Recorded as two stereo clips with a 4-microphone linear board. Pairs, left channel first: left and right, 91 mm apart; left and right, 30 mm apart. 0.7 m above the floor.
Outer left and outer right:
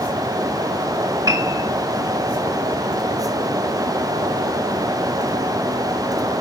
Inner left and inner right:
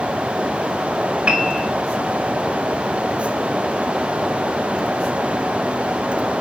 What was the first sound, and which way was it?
A piano, 40° right (ahead or behind).